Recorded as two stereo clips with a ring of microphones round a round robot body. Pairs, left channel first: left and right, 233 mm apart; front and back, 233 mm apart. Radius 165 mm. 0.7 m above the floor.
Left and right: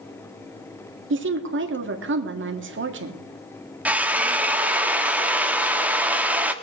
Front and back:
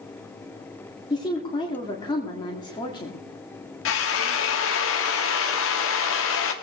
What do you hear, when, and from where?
1.1 s a woman speaking: 75° right, 1.7 m
3.9 s a drill: 5° right, 1.5 m